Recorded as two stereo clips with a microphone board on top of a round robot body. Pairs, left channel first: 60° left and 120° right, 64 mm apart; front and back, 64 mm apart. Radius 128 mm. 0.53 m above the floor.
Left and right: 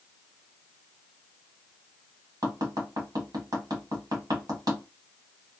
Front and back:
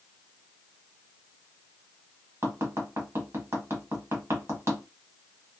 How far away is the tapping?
About 1.3 m.